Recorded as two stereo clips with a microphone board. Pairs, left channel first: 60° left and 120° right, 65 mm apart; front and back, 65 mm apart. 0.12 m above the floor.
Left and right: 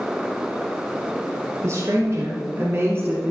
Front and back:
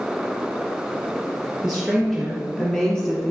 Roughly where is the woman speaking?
Right.